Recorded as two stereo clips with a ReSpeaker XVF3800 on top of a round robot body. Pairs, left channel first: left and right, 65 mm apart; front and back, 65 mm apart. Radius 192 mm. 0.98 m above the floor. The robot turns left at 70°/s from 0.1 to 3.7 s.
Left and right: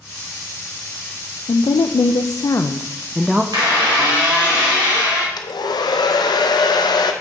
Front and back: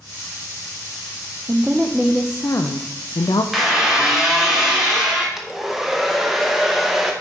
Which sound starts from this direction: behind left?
A woman speaking, at 1.5 s.